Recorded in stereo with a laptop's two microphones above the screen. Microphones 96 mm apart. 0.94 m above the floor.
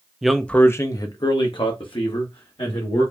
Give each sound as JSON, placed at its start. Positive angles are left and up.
{"t": 0.2, "sound": "a man speaking", "side_deg": -5, "distance_m": 0.6}